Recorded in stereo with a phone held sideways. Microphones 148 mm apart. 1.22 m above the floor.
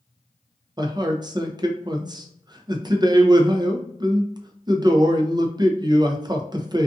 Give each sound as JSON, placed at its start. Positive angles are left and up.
{"t": 0.8, "sound": "a man speaking", "side_deg": -30, "distance_m": 0.5}